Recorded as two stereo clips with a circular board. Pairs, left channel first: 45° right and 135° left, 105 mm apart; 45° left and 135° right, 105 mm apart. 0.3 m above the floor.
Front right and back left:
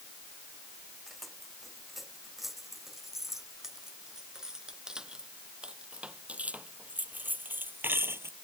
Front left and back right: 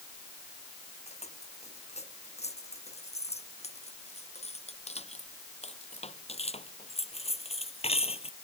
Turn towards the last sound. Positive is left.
turn(degrees=70)